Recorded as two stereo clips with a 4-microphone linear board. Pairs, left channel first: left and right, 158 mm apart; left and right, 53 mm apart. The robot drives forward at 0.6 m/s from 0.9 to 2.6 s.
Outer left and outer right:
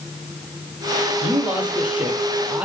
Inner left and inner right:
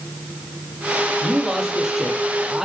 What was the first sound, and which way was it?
A man speaking, 5° right (ahead or behind).